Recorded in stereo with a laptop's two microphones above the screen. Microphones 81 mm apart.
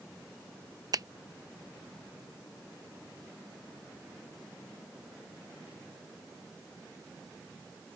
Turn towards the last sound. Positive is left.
turn(degrees=-50)  # may be behind; listen again after turning